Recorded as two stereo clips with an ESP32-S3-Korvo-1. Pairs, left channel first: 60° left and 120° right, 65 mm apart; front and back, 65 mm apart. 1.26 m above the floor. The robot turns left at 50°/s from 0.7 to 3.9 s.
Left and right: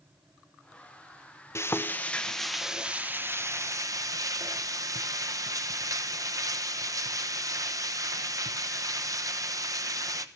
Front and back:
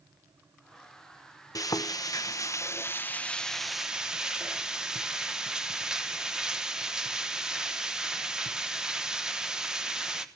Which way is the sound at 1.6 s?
15° left.